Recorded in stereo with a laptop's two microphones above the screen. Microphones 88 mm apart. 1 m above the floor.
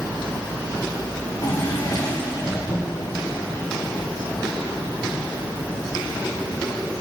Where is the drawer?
40° left (ahead or behind), 3 m.